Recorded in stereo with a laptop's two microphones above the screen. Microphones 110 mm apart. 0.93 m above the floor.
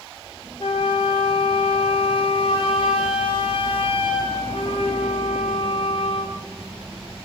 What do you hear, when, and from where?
0.6 s a flute: 55° left (ahead or behind), 0.6 m